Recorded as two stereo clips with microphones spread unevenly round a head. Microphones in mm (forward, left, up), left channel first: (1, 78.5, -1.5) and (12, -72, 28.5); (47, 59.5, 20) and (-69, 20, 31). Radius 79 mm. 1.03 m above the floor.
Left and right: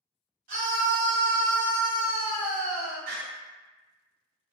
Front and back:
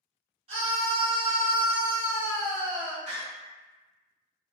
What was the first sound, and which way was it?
A scream, 115° right.